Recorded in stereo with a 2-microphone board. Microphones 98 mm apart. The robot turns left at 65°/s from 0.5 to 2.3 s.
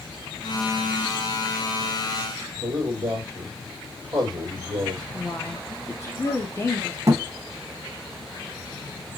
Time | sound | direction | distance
2.6 | a man speaking | 40° right (ahead or behind) | 1.8 m
5.1 | a woman speaking | 30° left (ahead or behind) | 0.8 m
7.1 | a thud | 35° right (ahead or behind) | 0.7 m